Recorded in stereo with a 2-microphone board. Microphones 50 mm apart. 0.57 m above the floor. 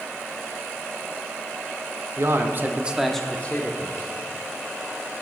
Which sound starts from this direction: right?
A man speaking, at 2.2 s.